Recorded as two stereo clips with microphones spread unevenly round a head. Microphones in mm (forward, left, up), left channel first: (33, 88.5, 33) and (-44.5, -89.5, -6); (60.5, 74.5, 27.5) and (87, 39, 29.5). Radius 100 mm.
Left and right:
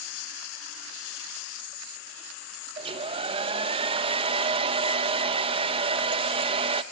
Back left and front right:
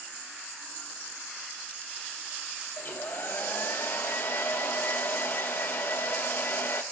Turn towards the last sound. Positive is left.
turn(degrees=180)